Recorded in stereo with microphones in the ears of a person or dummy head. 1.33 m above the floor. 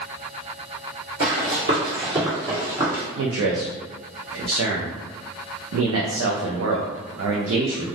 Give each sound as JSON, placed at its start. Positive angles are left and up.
{"t": 1.2, "sound": "running footsteps", "side_deg": -35, "distance_m": 1.6}
{"t": 3.2, "sound": "a man speaking", "side_deg": -80, "distance_m": 0.6}